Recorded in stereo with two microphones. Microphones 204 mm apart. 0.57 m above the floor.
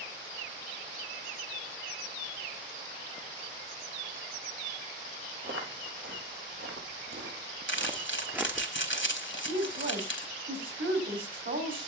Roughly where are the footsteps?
Right.